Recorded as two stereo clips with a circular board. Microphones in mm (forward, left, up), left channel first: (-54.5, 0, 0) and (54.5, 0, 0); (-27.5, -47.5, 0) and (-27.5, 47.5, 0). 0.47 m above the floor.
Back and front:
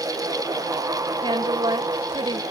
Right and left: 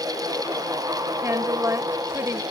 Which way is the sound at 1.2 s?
35° left.